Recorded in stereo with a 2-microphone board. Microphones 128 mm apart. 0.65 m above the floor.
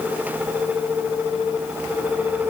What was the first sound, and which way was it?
Only background noise.